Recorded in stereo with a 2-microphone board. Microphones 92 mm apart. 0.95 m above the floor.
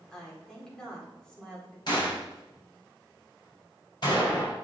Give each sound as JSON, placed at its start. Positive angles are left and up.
{"t": 0.1, "sound": "a woman speaking", "side_deg": 5, "distance_m": 2.5}
{"t": 1.9, "sound": "a gunshot", "side_deg": 50, "distance_m": 4.5}